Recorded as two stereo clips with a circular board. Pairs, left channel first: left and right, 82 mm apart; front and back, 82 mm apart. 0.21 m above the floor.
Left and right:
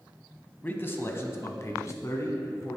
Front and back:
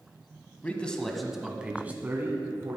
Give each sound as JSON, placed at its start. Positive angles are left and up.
{"t": 0.6, "sound": "a man speaking", "azimuth_deg": 50, "distance_m": 1.1}